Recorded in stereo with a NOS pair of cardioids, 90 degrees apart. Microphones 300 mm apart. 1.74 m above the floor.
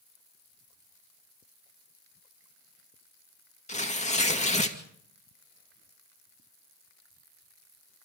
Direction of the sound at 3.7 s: 25° left.